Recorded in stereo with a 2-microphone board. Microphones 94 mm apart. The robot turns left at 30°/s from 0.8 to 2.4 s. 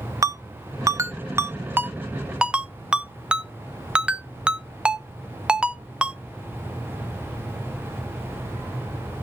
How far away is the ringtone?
About 0.6 m.